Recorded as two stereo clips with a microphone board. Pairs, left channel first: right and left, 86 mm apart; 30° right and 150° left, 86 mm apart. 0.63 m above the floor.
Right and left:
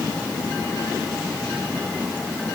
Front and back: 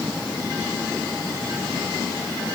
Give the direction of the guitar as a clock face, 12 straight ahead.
I don't hear a guitar.